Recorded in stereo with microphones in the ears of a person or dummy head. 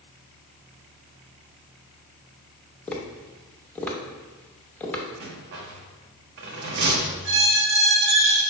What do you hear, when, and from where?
2.9 s tapping: 10° left (ahead or behind), 0.6 m
5.2 s a rattle: 55° right (ahead or behind), 0.7 m
7.2 s a squeak: 60° right (ahead or behind), 1.0 m